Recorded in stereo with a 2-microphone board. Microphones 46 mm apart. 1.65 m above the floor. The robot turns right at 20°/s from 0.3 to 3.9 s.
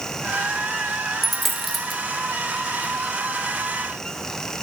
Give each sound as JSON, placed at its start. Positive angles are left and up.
{"t": 1.2, "sound": "a dropped coin", "side_deg": 0, "distance_m": 1.0}